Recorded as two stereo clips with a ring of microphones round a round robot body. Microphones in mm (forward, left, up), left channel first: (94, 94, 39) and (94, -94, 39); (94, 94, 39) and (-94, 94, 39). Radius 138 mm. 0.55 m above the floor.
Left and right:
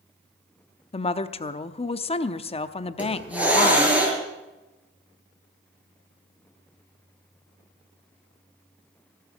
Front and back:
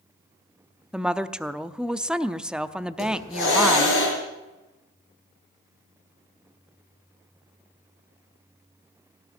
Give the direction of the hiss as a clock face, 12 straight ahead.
12 o'clock.